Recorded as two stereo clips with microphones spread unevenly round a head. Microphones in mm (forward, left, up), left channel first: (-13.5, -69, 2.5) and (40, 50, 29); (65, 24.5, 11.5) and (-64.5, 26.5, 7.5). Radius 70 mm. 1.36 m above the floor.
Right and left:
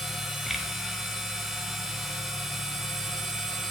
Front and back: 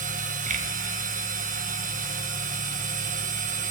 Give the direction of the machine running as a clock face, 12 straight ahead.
7 o'clock.